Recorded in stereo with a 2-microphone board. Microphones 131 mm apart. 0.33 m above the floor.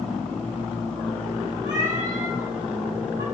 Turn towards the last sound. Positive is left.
turn(degrees=-90)